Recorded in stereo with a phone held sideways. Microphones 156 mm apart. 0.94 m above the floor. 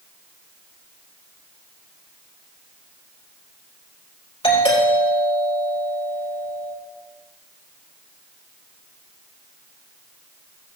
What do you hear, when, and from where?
4.4 s a doorbell: 35° left (ahead or behind), 5 m